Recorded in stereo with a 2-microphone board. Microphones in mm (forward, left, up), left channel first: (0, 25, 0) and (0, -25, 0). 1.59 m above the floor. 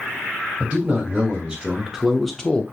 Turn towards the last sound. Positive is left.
turn(degrees=25)  # may be behind; listen again after turning